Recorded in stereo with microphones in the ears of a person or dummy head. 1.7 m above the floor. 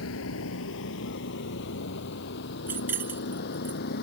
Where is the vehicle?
75° left (ahead or behind); by 4.0 s 55° left (ahead or behind).